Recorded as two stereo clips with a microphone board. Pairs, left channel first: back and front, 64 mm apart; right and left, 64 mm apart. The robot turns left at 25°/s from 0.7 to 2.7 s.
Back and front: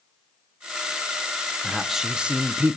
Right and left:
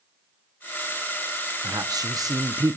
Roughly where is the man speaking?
Left.